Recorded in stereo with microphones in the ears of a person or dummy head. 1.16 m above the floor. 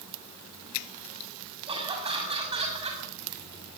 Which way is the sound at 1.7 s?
20° right (ahead or behind).